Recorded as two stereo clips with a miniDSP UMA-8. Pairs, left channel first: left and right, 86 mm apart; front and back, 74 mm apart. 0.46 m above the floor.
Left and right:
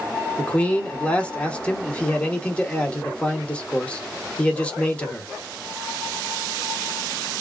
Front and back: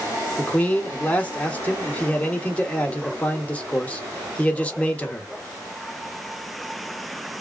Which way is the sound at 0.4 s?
35° left.